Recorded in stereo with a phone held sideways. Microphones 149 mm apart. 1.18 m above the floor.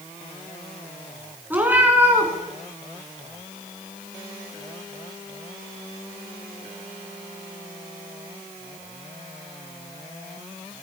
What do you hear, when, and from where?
1.5 s a cat meowing: 10° right (ahead or behind), 4 m